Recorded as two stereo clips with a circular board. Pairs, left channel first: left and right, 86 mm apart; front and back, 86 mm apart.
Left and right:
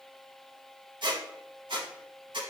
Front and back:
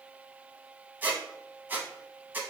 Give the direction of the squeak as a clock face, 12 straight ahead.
4 o'clock.